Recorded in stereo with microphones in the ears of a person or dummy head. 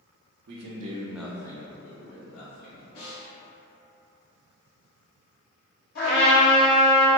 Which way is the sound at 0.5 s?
60° right (ahead or behind).